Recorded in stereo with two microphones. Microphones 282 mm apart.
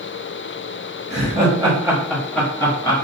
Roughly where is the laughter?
Right.